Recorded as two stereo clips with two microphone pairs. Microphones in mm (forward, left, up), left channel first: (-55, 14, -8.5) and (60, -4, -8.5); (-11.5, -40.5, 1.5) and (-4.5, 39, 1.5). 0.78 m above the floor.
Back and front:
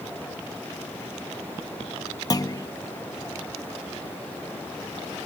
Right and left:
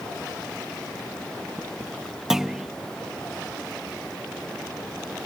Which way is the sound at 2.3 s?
160° left.